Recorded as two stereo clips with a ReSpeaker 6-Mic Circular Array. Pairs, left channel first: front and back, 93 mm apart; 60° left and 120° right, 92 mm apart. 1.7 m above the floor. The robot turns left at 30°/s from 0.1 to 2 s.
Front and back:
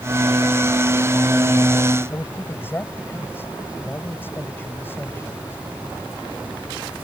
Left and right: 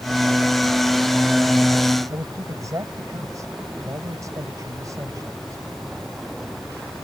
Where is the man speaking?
65° right.